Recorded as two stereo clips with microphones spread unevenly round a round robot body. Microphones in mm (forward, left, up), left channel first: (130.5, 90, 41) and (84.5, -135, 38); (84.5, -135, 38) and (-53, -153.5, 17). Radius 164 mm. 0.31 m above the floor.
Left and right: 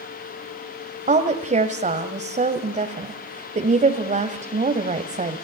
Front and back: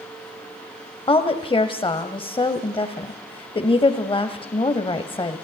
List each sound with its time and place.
1.1 s a woman speaking: 50° right, 1.6 m